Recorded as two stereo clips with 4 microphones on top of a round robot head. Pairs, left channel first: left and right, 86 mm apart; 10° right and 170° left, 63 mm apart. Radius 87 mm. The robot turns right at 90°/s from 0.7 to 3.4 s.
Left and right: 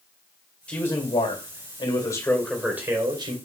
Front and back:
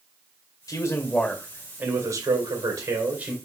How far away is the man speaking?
About 2.5 m.